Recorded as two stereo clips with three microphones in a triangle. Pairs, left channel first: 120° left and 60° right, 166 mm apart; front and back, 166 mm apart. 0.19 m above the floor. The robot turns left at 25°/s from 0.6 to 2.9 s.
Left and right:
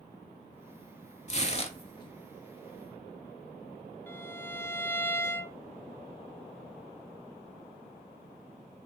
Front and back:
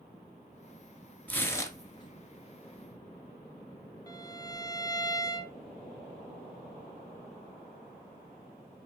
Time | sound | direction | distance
1.3 | tearing paper | 80° left | 1.2 m
4.1 | a violin | 50° left | 0.8 m